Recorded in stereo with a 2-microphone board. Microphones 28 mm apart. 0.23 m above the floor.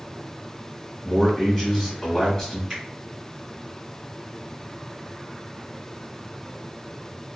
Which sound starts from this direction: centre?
A man speaking, at 1.0 s.